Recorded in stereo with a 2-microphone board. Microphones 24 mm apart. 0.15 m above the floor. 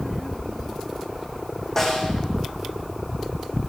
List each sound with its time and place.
1.8 s a snare drum: 15° left (ahead or behind), 6.5 m